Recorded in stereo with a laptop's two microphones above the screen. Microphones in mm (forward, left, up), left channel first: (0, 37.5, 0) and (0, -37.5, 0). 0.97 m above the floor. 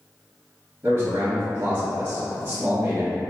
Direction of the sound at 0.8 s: 45° right (ahead or behind).